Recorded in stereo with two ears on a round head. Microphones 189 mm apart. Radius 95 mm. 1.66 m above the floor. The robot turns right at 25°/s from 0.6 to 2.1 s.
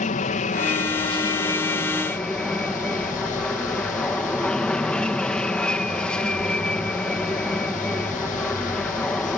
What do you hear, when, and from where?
0.0 s an aircraft: 135° left; by 9.4 s 175° left